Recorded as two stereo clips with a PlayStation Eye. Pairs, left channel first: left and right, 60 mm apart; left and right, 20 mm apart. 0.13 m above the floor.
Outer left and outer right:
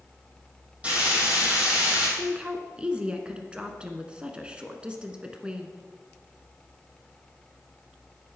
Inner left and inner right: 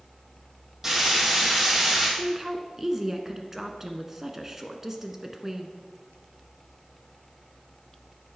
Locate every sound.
0.8 s frying: 20° right (ahead or behind), 4.5 m
2.2 s a woman speaking: 20° right (ahead or behind), 1.2 m